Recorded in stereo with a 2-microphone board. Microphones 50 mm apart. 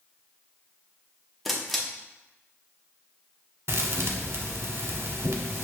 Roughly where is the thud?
Right.